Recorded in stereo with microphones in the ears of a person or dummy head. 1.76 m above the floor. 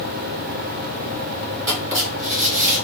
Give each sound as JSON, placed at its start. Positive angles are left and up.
{"t": 1.7, "sound": "writing", "side_deg": -20, "distance_m": 2.0}